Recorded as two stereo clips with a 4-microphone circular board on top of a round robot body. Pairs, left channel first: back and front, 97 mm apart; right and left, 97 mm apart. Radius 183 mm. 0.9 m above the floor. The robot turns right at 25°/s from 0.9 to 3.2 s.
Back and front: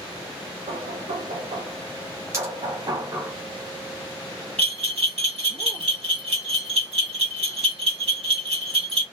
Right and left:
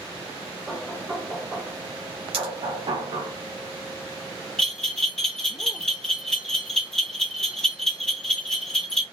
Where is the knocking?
Straight ahead, 0.6 m; by 3.3 s 60° left, 0.6 m.